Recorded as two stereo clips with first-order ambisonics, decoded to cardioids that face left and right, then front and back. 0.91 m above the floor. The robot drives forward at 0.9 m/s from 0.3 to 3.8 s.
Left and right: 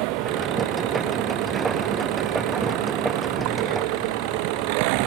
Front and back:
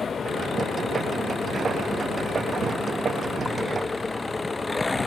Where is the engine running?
70° right; by 5.1 s 80° right.